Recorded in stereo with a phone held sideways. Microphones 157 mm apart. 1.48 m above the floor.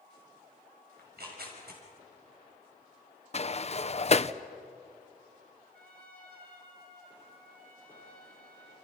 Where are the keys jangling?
No keys jangling in this recording.